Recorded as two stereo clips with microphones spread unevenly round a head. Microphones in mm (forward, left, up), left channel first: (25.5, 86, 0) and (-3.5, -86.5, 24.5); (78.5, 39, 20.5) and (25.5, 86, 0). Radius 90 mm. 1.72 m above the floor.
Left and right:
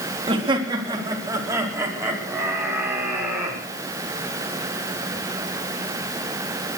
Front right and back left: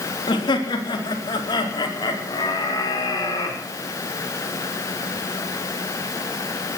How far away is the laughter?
About 3.5 m.